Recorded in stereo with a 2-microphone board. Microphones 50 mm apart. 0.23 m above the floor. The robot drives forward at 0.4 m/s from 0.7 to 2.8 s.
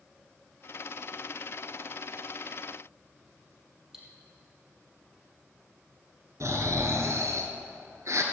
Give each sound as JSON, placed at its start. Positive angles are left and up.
{"t": 3.9, "sound": "cutlery clinking", "side_deg": -10, "distance_m": 4.0}
{"t": 6.4, "sound": "snoring", "side_deg": -70, "distance_m": 1.6}